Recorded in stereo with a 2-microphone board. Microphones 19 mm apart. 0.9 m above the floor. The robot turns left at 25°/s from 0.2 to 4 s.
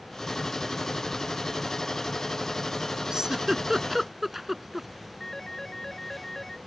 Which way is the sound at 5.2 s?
20° left (ahead or behind).